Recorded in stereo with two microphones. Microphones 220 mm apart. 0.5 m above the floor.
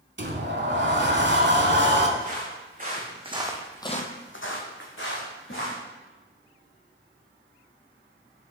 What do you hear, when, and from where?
0.2 s a sliding door: 55° right (ahead or behind), 0.7 m
2.2 s footsteps: 40° right (ahead or behind), 2.5 m; by 5.8 s 60° left (ahead or behind), 3 m